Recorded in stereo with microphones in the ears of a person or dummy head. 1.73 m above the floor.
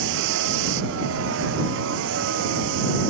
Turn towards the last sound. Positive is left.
turn(degrees=-75)  # may be behind; listen again after turning